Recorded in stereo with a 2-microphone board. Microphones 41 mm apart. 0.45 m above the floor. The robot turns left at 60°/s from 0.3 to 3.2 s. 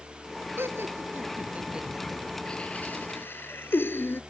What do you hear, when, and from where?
0.6 s laughter: 80° right; by 4.2 s 65° left (ahead or behind)